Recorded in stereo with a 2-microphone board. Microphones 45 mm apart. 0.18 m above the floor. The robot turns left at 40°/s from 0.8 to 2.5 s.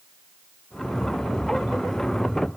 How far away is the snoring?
I don't hear snoring.